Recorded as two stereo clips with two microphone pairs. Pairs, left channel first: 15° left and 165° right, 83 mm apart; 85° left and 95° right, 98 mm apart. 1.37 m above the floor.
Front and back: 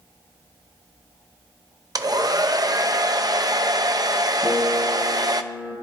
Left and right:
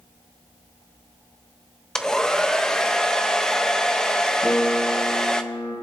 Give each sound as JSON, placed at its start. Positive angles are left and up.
{"t": 1.9, "sound": "a hair dryer", "azimuth_deg": 165, "distance_m": 0.7}
{"t": 4.4, "sound": "a piano", "azimuth_deg": 135, "distance_m": 5.5}